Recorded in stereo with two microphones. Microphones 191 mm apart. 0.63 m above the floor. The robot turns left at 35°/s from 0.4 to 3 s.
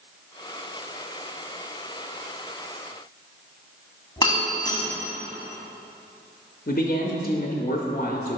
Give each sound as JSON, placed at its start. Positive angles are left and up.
{"t": 4.2, "sound": "breaking glass", "side_deg": 20, "distance_m": 1.6}
{"t": 6.7, "sound": "a man speaking", "side_deg": 45, "distance_m": 0.7}